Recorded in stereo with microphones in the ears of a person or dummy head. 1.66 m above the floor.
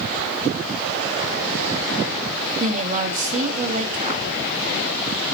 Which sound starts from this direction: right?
A woman speaking, at 2.6 s.